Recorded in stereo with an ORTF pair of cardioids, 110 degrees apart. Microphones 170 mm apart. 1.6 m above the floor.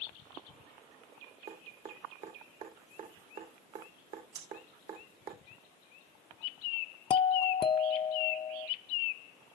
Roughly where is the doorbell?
Ahead left.